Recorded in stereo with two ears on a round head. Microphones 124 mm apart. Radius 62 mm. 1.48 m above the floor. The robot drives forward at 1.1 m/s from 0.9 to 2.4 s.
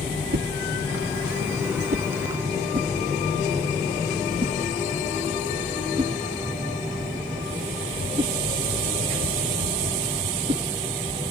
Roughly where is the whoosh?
Right.